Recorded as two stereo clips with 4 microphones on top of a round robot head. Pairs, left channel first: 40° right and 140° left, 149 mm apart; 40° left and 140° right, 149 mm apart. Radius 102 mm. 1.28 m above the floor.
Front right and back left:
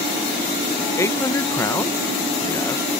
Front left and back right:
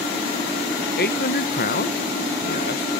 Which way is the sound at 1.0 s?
35° left.